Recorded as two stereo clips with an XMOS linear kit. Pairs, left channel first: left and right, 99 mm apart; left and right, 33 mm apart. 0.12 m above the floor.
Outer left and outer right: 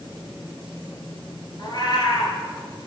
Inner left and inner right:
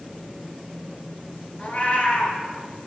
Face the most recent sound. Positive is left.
turn(degrees=50)  # may be behind; listen again after turning